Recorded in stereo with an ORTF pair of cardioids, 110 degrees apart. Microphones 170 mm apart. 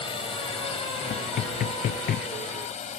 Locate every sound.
0.0 s a drone: 30° left; by 3.0 s 45° left
1.1 s knocking: 60° left